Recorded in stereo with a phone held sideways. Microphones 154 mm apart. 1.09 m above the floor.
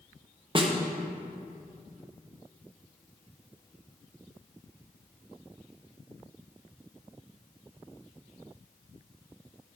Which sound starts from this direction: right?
A snare drum, at 0.6 s.